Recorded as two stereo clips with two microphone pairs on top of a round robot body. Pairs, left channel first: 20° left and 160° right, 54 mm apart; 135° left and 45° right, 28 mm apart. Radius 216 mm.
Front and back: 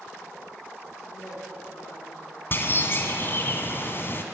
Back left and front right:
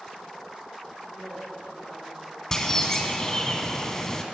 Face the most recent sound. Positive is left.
turn(degrees=65)